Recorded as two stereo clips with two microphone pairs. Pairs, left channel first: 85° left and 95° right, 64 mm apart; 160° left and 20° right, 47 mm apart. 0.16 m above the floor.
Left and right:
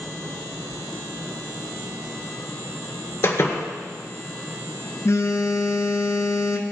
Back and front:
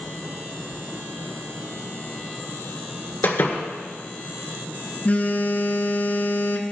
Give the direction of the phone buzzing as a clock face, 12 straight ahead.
8 o'clock.